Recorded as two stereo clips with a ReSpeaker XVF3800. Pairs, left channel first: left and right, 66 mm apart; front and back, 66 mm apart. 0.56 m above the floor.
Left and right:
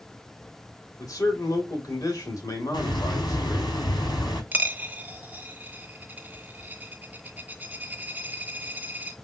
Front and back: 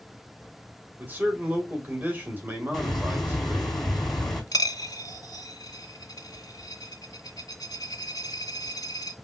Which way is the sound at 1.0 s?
115° left.